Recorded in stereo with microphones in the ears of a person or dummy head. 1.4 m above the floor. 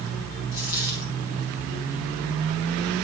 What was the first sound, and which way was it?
A dropped coin, 20° right (ahead or behind).